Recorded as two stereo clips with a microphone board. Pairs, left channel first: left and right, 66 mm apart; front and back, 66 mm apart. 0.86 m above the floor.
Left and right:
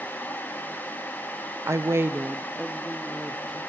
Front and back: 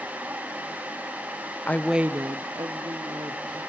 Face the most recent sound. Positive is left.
turn(degrees=175)